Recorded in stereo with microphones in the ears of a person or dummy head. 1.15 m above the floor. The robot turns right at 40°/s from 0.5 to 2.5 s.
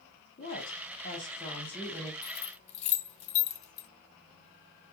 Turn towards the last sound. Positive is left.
turn(degrees=30)  # may be behind; listen again after turning